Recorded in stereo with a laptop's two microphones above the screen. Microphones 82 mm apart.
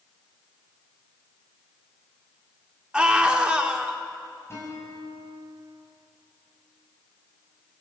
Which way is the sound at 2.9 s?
10° right (ahead or behind).